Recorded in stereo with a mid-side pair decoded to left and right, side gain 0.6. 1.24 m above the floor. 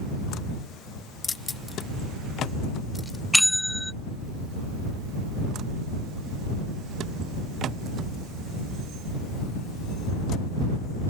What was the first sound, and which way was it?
Keys jangling, 30° left.